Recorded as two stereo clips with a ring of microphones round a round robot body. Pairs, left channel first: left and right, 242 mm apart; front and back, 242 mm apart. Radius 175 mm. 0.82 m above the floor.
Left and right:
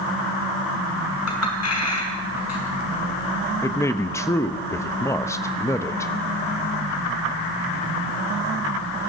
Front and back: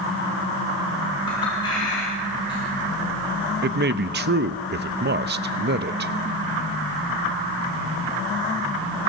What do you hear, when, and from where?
1.3 s a clink: 80° left, 5.5 m
3.6 s a man speaking: 165° left, 0.7 m